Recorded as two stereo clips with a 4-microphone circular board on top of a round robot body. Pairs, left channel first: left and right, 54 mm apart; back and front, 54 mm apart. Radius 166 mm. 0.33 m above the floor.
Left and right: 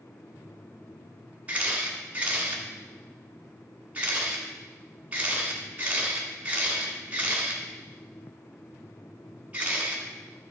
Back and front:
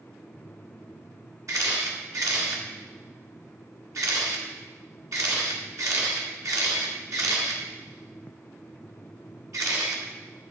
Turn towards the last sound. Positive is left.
turn(degrees=-25)